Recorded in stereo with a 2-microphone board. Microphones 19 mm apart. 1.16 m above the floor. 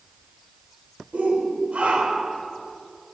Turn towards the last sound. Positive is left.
turn(degrees=-85)